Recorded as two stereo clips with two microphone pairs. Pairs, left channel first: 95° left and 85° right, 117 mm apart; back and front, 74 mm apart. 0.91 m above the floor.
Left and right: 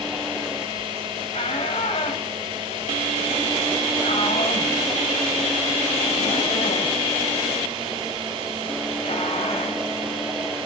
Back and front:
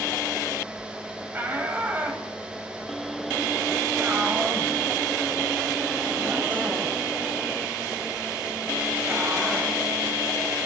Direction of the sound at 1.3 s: 65° left.